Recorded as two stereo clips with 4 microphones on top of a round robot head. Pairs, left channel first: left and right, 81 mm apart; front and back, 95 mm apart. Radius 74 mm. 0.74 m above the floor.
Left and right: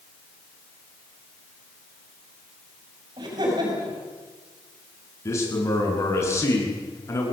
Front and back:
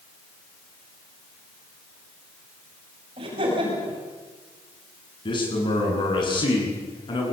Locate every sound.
3.2 s laughter: 135° right, 6 m
5.2 s a man speaking: 35° left, 9 m